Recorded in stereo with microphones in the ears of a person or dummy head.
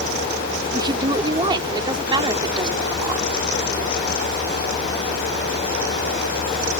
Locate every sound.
0.7 s a woman speaking: 25° right (ahead or behind)